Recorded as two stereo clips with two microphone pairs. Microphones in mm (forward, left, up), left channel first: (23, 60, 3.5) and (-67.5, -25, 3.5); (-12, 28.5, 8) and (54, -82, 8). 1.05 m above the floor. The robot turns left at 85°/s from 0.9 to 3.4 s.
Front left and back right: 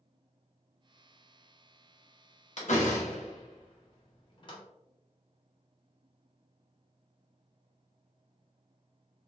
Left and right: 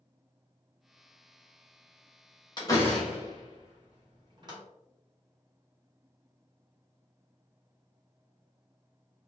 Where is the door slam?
65° left, 1.0 m; by 4.6 s 5° right, 1.0 m.